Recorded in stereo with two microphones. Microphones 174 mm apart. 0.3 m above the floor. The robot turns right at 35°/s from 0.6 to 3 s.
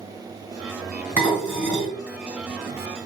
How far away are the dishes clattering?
About 1.9 m.